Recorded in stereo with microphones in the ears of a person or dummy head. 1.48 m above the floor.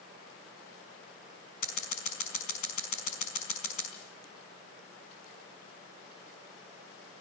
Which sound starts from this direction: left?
Scissors, at 1.6 s.